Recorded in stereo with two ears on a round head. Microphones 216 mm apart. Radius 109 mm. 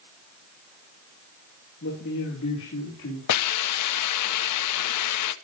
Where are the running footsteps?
I don't hear running footsteps.